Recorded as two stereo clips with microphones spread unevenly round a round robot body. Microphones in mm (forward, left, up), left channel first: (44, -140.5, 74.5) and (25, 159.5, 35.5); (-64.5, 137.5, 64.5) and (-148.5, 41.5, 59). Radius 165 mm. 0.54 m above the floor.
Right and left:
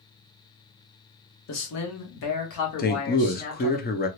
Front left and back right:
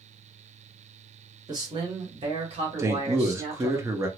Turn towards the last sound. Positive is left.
turn(degrees=-120)